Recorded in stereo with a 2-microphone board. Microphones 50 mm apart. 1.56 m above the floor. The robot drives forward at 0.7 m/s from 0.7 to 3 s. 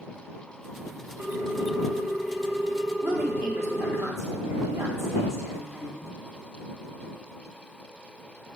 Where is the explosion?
No explosion in this recording.